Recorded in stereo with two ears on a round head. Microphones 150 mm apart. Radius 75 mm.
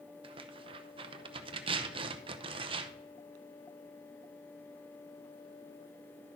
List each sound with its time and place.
0.2 s tearing paper: 35° right (ahead or behind), 0.7 m